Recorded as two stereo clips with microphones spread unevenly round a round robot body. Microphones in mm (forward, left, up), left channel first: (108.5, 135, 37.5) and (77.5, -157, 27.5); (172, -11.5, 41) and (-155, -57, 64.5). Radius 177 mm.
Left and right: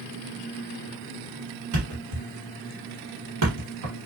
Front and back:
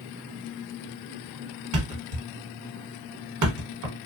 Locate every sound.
1.7 s a thud: 135° right, 1.1 m